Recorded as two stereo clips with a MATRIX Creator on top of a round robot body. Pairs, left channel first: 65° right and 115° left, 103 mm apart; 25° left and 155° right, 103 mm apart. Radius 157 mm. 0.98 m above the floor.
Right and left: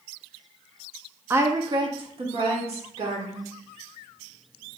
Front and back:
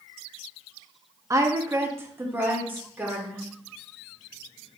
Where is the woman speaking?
170° left, 0.7 m; by 3.5 s 130° left, 2 m.